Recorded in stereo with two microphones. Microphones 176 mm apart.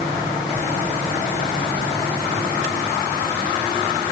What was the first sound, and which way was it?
Only background noise.